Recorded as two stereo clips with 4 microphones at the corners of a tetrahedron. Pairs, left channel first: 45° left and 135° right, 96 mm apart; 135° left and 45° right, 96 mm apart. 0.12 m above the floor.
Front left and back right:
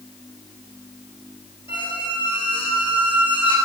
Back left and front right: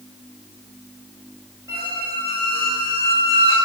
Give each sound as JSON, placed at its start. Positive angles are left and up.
{"t": 1.7, "sound": "a squeak", "azimuth_deg": 15, "distance_m": 3.0}